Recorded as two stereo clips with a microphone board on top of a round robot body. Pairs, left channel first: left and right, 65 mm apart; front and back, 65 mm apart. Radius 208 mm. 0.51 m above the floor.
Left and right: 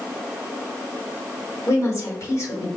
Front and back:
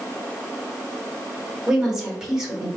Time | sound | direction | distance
1.7 | a woman speaking | 100° left | 1.8 m